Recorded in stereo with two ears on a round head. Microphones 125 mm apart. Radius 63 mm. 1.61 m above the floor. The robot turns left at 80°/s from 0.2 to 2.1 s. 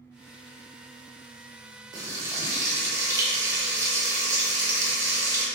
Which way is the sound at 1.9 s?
30° right (ahead or behind).